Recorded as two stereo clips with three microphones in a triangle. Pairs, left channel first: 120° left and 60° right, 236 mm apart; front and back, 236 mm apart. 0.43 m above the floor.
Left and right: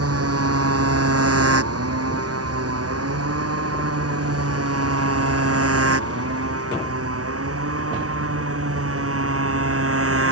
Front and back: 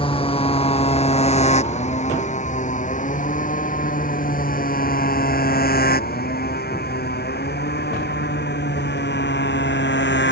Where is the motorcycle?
70° right; by 10.3 s 40° right.